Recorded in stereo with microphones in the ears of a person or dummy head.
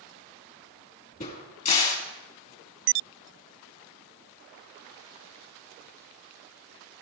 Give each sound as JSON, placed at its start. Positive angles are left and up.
{"t": 1.2, "sound": "a crack", "side_deg": 40, "distance_m": 2.5}